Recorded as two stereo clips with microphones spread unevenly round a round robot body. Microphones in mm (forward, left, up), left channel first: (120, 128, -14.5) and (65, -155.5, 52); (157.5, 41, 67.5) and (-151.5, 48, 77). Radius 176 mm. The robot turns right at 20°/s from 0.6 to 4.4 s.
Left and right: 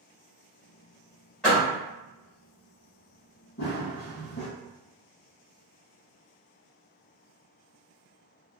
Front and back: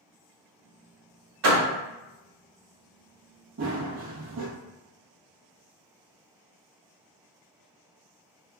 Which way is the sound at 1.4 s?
155° left.